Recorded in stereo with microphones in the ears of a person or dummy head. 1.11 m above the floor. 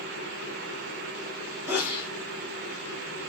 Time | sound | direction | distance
1.7 | a sneeze | 10° right (ahead or behind) | 0.9 m